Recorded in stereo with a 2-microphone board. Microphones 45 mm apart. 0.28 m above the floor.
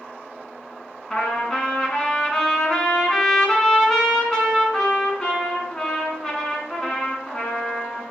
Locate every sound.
1.1 s a trumpet: 15° left (ahead or behind), 1.8 m